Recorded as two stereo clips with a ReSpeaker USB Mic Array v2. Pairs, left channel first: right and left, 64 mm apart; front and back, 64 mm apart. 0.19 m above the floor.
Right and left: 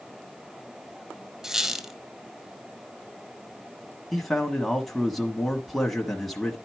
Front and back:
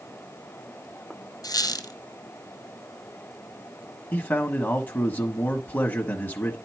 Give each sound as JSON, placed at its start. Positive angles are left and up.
{"t": 1.4, "sound": "a squeak", "azimuth_deg": 5, "distance_m": 1.1}
{"t": 4.1, "sound": "a man speaking", "azimuth_deg": -10, "distance_m": 1.2}